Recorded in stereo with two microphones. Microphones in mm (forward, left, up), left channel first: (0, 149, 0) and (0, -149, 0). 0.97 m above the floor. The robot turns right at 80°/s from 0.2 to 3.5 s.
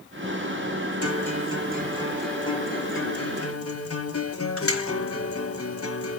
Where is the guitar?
95° right, 0.9 m; by 6.2 s 100° left, 0.9 m.